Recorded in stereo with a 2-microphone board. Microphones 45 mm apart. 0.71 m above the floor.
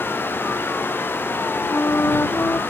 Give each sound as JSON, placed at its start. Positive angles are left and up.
{"t": 1.7, "sound": "a flute", "side_deg": 85}